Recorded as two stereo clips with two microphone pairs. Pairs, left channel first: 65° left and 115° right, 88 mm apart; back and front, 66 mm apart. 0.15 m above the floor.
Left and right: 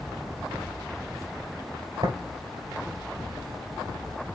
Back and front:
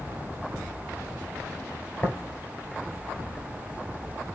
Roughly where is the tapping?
Behind right.